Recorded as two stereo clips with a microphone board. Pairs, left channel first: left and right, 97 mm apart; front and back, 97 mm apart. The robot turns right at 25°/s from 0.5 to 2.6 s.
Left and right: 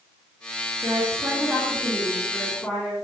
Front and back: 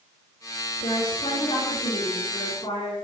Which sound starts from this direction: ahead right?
A woman speaking, at 0.8 s.